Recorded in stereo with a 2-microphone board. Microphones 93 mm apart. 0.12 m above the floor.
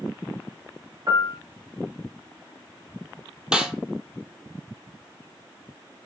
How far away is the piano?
About 0.7 m.